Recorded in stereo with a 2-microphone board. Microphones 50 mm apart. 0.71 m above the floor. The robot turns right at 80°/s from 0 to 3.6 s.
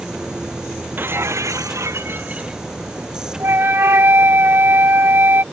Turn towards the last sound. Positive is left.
turn(degrees=-50)  # may be behind; listen again after turning